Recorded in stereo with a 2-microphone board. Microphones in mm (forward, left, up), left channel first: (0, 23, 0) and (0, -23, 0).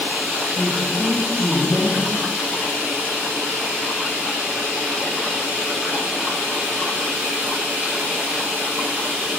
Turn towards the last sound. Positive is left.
turn(degrees=65)  # may be behind; listen again after turning